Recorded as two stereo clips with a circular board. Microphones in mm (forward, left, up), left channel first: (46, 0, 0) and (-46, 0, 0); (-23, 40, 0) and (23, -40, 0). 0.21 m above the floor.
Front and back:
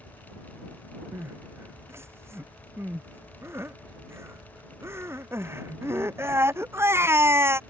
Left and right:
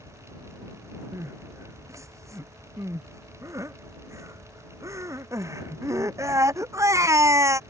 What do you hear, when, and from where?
1.1 s crying: 115° right